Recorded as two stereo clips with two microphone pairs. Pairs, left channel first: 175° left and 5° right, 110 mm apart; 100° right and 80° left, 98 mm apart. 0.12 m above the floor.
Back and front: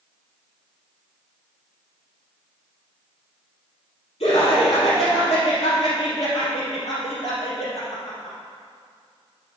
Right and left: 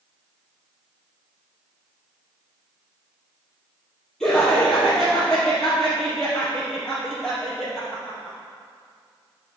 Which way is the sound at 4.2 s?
Straight behind.